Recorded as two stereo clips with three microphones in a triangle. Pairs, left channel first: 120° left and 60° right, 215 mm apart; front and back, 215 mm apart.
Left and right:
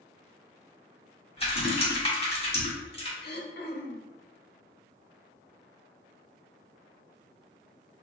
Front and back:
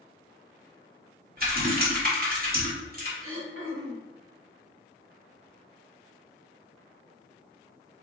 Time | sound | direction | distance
1.4 | typing on a keyboard | 170° left | 1.3 m
3.2 | throat clearing | 165° left | 0.7 m